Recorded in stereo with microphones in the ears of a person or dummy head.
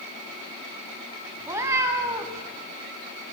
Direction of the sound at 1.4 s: 20° right (ahead or behind).